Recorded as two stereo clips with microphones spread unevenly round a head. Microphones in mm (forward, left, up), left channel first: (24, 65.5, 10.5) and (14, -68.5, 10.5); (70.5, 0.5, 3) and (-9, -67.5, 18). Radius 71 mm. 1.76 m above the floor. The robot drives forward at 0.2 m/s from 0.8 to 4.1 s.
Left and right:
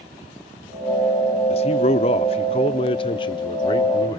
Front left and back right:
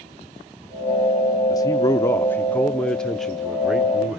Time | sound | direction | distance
1.5 | a man speaking | 100° left | 0.7 m